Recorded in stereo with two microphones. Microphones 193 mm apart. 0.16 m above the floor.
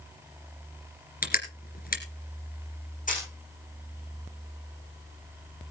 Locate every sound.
1.2 s crushing: 50° left (ahead or behind), 2.5 m
3.1 s a camera shutter: 45° left (ahead or behind), 5.5 m